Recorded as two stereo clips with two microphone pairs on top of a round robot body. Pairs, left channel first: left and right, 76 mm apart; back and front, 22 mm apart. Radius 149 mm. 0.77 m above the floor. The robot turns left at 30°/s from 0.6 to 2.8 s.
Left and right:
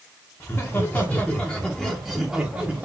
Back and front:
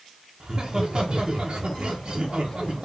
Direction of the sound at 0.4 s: 40° left.